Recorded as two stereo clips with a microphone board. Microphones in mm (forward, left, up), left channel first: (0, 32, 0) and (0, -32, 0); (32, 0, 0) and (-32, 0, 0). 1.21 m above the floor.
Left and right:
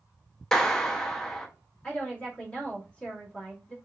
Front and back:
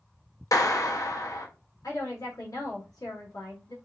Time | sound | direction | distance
0.5 | a clap | 10° left | 0.7 m
1.8 | a woman speaking | 15° left | 1.9 m